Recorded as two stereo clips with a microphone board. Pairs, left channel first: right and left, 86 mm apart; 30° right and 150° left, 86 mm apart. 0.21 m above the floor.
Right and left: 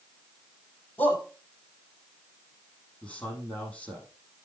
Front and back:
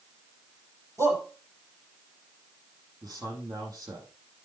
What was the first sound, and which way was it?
A shout, 155° right.